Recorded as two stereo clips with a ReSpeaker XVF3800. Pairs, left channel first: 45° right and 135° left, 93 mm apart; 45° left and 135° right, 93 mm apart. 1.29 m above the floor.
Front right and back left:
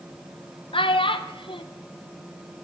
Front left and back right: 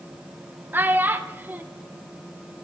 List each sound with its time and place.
0.7 s a child speaking: 65° right, 0.7 m